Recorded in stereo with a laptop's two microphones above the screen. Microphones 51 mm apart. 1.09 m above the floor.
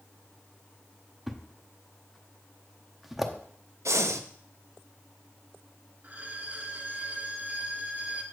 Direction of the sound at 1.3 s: Centre (ahead or behind).